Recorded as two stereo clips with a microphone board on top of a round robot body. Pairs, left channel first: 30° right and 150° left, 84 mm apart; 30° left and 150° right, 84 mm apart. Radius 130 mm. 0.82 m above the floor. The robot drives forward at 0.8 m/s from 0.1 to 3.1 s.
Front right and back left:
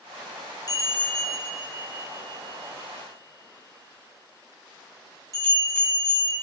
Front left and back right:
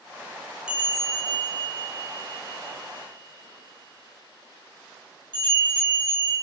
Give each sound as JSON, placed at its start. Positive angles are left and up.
{"t": 0.7, "sound": "a bell", "azimuth_deg": -70, "distance_m": 0.7}